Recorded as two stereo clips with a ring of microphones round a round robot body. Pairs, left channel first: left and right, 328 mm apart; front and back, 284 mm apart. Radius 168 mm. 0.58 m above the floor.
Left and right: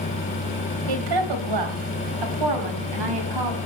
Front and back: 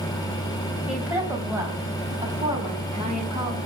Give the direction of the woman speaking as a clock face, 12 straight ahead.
3 o'clock.